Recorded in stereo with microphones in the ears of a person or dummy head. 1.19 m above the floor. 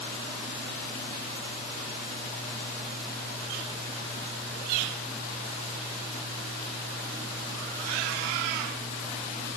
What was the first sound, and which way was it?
Only background noise.